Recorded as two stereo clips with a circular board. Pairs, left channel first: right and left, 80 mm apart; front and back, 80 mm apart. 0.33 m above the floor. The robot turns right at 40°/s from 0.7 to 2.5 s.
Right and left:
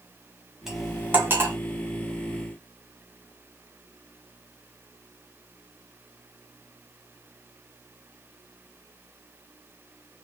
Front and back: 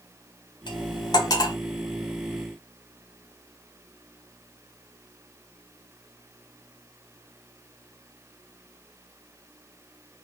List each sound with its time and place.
0.7 s cutlery clinking: 5° left, 1.1 m; by 1.6 s 40° left, 1.1 m